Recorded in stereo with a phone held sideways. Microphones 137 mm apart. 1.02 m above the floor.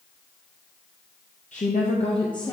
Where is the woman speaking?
65° left (ahead or behind), 0.7 m; by 2.5 s 30° left (ahead or behind), 0.8 m.